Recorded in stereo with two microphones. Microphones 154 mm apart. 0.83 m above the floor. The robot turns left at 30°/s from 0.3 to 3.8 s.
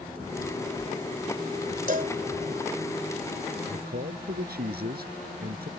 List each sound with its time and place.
1.9 s a cowbell: 65° right (ahead or behind); by 2.1 s 75° right (ahead or behind)
3.7 s a man speaking: 85° right; by 5.7 s 90° right